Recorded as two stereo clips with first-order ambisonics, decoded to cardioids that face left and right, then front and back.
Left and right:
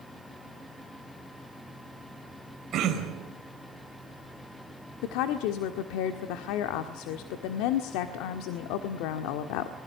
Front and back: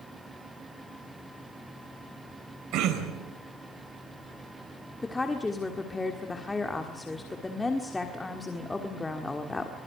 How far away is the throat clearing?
About 4 m.